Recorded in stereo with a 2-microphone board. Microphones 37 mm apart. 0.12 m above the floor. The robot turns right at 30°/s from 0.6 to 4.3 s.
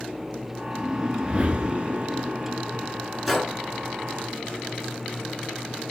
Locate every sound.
0.7 s a whoosh: 150° right, 0.7 m; by 2.9 s 85° right, 0.7 m
3.3 s a gunshot: centre (ahead or behind), 1.4 m